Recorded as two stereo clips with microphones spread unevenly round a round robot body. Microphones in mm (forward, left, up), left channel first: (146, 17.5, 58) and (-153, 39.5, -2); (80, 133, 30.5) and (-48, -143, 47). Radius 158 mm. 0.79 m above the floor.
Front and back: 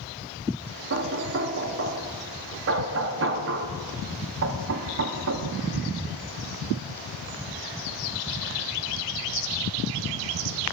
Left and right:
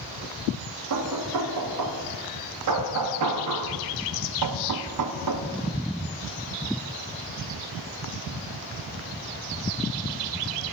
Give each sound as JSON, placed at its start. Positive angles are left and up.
{"t": 0.9, "sound": "knocking", "azimuth_deg": -145, "distance_m": 1.0}